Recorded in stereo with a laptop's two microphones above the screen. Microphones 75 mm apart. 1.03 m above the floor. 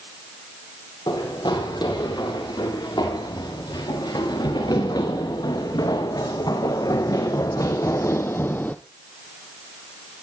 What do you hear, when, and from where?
1.1 s running footsteps: 85° left, 8.5 m; by 8.8 s 25° left (ahead or behind), 1.8 m